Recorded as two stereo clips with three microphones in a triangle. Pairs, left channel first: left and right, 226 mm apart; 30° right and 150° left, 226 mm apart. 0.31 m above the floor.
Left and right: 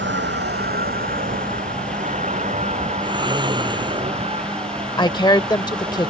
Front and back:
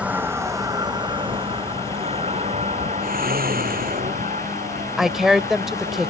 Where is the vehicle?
125° right; by 6.1 s 160° right.